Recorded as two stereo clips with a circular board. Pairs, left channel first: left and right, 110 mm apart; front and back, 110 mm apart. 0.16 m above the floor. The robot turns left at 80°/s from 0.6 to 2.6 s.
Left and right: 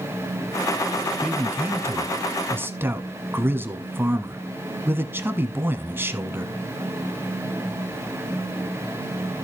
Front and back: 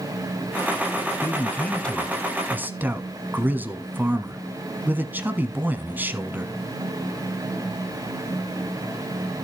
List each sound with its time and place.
1.2 s a man speaking: 20° right, 1.2 m; by 6.5 s 130° right, 1.2 m